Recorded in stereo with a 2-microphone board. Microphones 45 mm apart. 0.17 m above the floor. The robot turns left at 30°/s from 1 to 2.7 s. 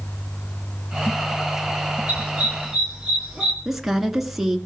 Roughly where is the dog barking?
Right.